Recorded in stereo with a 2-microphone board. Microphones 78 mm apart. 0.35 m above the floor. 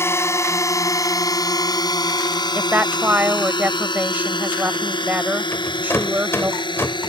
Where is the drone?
30° left (ahead or behind); by 7.1 s 75° left (ahead or behind).